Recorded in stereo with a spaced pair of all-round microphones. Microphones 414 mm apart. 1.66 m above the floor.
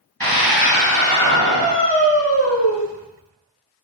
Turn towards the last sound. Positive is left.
turn(degrees=-65)  # may be behind; listen again after turning